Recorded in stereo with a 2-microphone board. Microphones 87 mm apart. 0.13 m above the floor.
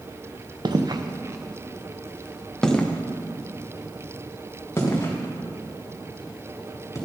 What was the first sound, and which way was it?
Footsteps, 60° right (ahead or behind).